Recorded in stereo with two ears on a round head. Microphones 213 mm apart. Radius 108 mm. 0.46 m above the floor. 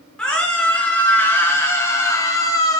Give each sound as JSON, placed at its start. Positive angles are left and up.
{"t": 0.2, "sound": "a scream", "side_deg": 5, "distance_m": 8.0}